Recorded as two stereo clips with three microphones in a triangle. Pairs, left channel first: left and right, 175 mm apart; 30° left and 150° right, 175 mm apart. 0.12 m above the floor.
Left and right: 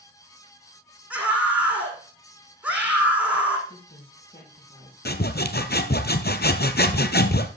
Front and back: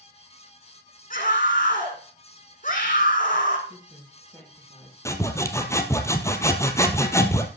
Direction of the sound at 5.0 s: 100° left.